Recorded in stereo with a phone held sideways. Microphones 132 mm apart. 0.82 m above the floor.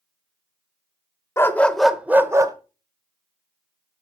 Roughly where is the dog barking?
Centre.